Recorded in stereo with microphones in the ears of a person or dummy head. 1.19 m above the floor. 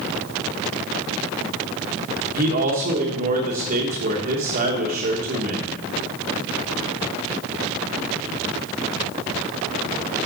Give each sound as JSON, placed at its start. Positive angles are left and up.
{"t": 2.3, "sound": "a man speaking", "side_deg": -45, "distance_m": 1.2}